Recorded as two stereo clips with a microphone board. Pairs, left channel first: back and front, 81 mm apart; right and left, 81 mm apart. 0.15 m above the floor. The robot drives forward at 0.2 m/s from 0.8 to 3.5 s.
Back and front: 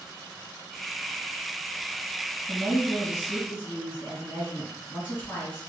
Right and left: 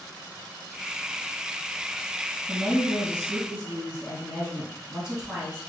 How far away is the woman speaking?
About 1.9 m.